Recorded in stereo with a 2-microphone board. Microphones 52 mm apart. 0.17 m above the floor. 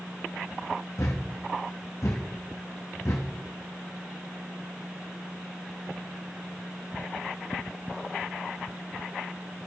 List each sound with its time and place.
1.0 s a thud: 70° left (ahead or behind), 1.5 m